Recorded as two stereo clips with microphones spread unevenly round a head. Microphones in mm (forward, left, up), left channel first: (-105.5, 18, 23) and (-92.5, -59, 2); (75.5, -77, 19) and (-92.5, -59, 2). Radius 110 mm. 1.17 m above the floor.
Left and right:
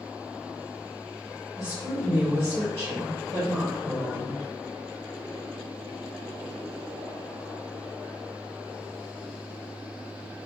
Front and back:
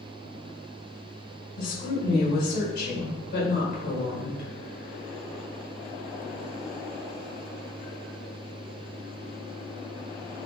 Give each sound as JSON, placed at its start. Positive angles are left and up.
{"t": 1.6, "sound": "a woman speaking", "azimuth_deg": -30, "distance_m": 1.8}